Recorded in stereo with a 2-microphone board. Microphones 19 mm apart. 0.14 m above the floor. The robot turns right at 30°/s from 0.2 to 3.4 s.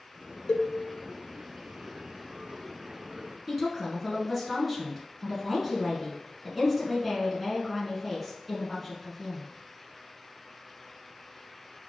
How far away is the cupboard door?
I don't hear a cupboard door.